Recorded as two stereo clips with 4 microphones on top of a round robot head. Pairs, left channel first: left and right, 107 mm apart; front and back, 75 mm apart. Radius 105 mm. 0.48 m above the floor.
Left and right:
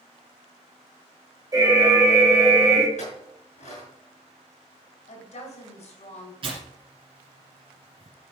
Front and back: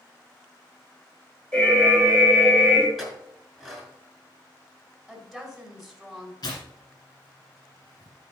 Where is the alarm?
70° right, 2 m.